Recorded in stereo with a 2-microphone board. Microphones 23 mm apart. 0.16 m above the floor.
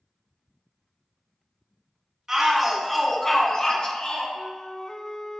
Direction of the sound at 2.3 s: 20° right (ahead or behind).